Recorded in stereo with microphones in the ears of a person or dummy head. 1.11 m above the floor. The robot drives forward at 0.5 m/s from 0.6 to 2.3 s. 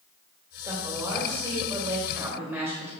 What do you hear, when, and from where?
0.6 s a woman speaking: 15° right (ahead or behind), 3.5 m; by 2.9 s 10° right (ahead or behind), 4 m